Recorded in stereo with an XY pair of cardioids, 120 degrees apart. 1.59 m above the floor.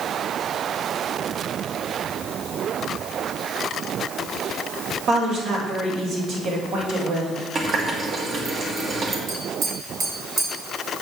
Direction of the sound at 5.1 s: 65° right.